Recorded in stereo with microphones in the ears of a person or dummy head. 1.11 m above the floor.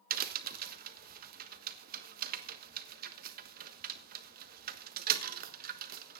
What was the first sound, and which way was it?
A crack, 50° right (ahead or behind).